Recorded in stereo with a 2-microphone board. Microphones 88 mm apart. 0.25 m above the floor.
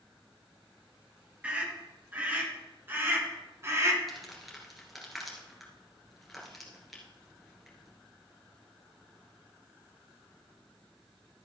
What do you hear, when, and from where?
1.4 s a scream: 15° right (ahead or behind), 4 m; by 4.0 s 35° right (ahead or behind), 3 m
4.1 s crumpling: centre (ahead or behind), 3 m